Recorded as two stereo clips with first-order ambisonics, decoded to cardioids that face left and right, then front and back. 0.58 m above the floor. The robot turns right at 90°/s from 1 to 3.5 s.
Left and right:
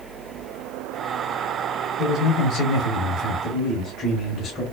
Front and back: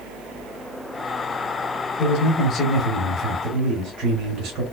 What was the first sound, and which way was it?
A man speaking, 15° left.